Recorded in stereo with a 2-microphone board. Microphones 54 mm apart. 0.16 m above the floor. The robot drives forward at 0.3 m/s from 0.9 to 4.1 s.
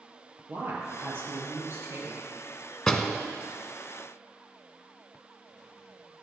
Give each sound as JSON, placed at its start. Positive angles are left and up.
{"t": 0.5, "sound": "a woman speaking", "side_deg": -50, "distance_m": 3.5}
{"t": 2.9, "sound": "a door slam", "side_deg": 5, "distance_m": 1.0}